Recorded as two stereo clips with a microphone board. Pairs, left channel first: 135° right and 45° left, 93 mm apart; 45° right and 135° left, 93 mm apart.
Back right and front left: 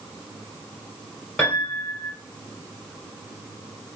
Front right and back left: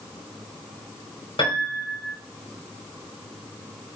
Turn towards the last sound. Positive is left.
turn(degrees=-60)